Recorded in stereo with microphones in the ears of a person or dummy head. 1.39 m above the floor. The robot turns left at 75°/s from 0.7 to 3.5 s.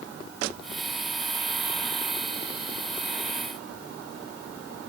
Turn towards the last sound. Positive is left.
No sound to turn to.